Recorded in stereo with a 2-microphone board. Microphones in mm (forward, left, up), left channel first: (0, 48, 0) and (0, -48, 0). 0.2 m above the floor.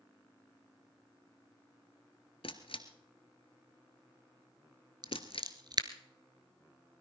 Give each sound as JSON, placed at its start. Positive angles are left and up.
{"t": 2.4, "sound": "a camera shutter", "side_deg": 75, "distance_m": 1.4}
{"t": 5.0, "sound": "scissors", "side_deg": -50, "distance_m": 1.2}